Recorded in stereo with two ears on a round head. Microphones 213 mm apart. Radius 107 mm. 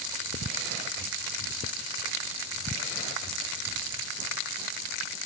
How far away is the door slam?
I don't hear a door slam.